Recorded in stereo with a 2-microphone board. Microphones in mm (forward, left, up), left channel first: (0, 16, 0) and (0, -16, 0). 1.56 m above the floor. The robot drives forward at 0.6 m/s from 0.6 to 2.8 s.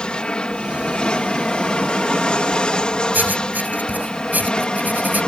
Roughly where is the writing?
Right.